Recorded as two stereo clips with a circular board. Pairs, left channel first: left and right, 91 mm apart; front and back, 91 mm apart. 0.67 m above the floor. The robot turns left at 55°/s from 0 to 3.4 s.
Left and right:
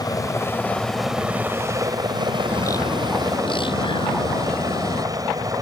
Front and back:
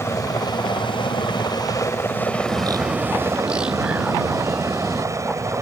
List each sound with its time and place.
0.0 s a helicopter: 55° left; by 5.6 s 130° right
2.5 s a bird: 150° left; by 5.0 s 100° left